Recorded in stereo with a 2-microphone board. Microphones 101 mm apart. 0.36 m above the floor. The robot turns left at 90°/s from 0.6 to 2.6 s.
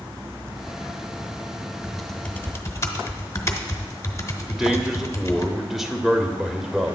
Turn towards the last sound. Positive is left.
turn(degrees=-5)  # may be behind; listen again after turning